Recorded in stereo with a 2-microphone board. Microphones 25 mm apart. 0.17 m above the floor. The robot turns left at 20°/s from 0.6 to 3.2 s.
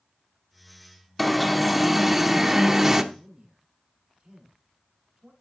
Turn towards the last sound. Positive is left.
turn(degrees=-25)  # may be behind; listen again after turning